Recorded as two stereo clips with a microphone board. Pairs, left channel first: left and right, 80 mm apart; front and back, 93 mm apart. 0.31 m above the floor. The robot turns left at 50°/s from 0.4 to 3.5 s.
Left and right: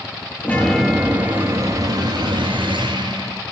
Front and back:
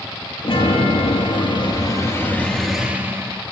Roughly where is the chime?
Ahead.